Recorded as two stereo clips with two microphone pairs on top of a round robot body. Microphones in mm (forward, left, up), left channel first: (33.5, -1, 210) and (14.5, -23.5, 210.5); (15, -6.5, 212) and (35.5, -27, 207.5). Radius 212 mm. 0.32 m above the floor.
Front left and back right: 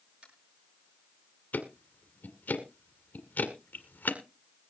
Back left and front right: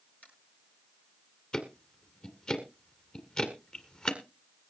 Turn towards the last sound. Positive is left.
turn(degrees=75)